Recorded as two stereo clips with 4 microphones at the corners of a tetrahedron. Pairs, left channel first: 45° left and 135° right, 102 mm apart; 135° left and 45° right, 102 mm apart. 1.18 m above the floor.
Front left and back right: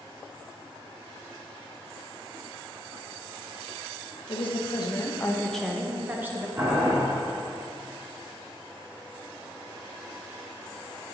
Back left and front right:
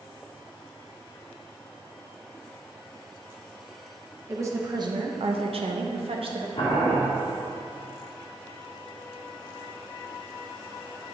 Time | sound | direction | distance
4.3 | a woman speaking | 20° left | 0.9 m
6.6 | boiling | 170° left | 2 m